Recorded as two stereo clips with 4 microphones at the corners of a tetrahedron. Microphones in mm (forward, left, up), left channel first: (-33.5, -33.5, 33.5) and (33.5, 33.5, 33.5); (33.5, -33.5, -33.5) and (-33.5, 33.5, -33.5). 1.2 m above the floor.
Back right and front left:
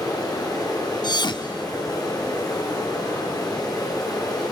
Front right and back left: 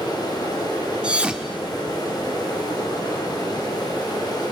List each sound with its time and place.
0.0 s running water: 90° right, 5.5 m
1.0 s a thud: 145° right, 1.1 m